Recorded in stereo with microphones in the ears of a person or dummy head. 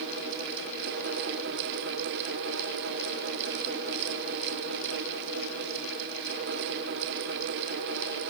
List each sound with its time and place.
Only background noise.